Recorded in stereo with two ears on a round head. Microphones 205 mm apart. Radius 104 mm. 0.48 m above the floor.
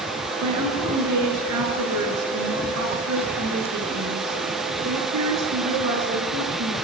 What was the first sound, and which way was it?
A woman speaking, 80° right.